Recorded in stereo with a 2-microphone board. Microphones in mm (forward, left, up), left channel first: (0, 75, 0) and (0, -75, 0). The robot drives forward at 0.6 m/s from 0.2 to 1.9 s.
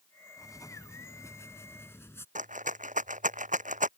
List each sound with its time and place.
0.4 s writing: 25° left (ahead or behind); by 2.2 s 15° left (ahead or behind)
2.4 s a rattle: 60° right (ahead or behind)